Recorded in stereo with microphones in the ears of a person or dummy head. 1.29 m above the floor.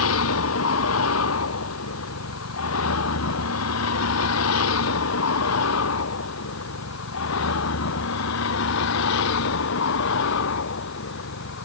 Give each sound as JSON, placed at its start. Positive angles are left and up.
{"t": 0.0, "sound": "a vehicle", "side_deg": 85}